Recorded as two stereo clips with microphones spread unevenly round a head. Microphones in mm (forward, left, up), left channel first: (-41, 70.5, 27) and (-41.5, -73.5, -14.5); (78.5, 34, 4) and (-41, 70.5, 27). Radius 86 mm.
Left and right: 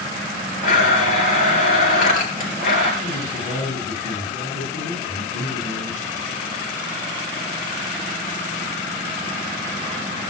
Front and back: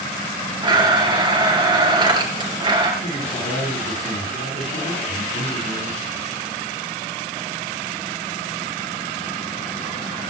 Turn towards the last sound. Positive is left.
turn(degrees=10)